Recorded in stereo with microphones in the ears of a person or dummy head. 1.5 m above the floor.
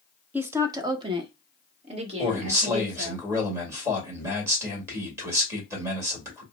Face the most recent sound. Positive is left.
turn(degrees=-15)  # may be behind; listen again after turning